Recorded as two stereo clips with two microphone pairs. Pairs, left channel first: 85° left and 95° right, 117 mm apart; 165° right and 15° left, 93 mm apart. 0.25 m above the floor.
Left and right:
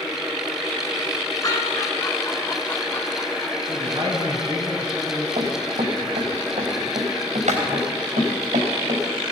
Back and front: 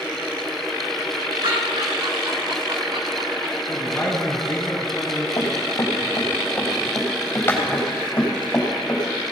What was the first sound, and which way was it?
Laughter, 30° left.